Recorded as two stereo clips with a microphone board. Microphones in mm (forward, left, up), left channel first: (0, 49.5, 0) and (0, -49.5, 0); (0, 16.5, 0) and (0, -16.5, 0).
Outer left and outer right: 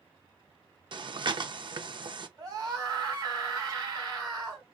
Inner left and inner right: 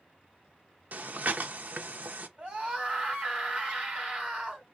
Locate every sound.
0.9 s breathing: 50° right (ahead or behind), 0.6 m
2.4 s a scream: 40° right (ahead or behind), 2.5 m